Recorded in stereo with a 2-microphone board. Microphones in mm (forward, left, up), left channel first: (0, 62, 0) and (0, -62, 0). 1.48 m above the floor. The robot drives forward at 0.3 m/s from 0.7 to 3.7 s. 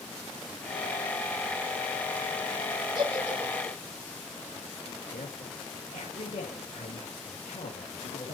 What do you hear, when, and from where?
3.0 s a giggle: 40° right (ahead or behind), 7.5 m
5.1 s a woman speaking: 90° left, 2.5 m